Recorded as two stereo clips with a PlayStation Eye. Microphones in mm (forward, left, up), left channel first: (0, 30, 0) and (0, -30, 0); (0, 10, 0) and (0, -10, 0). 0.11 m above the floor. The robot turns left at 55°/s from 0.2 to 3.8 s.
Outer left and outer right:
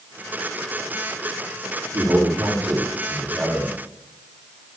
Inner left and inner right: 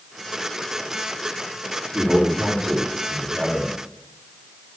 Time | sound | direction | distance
1.9 | a man speaking | 100° right | 10 m